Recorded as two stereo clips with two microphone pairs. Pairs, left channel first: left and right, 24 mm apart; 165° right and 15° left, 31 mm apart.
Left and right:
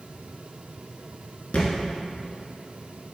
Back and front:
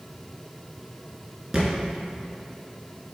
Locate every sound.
1.5 s a thud: 85° left, 2 m